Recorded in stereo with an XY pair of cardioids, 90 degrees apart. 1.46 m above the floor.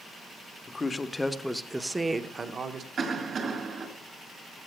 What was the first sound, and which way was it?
A man speaking, 30° left.